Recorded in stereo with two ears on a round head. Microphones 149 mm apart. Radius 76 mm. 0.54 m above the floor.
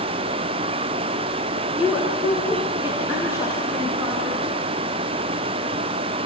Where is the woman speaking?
5° right (ahead or behind), 6 m; by 4.4 s 20° right (ahead or behind), 6 m.